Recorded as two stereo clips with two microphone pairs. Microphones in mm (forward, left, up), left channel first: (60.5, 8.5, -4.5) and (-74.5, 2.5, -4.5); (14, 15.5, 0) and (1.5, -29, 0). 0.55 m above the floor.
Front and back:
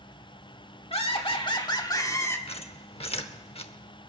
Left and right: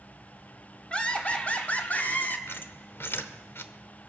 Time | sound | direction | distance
0.9 | laughter | 15° left | 1.6 m
2.5 | a squeak | 45° left | 0.8 m